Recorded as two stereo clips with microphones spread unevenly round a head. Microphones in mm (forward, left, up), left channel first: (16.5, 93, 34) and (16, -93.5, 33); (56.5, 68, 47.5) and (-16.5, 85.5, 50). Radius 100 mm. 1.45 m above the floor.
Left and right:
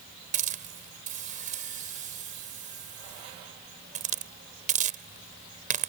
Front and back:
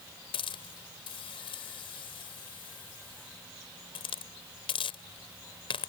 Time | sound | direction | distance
0.3 | a hiss | 40° right | ?